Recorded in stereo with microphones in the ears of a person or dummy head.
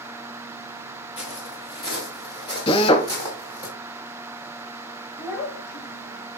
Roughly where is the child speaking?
Left.